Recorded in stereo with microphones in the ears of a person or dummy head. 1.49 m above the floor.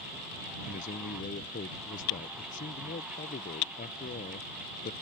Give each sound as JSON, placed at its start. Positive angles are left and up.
{"t": 0.7, "sound": "a man speaking", "side_deg": 40}